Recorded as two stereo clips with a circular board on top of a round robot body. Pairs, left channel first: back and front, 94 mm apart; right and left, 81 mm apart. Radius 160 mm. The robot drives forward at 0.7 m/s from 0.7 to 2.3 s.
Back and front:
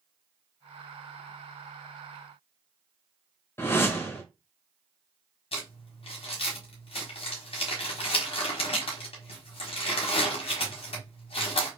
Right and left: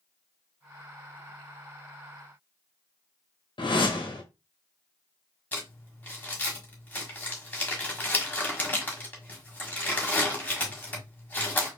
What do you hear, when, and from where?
3.6 s a whoosh: 115° right, 1.4 m
5.5 s crumpling: 160° right, 1.3 m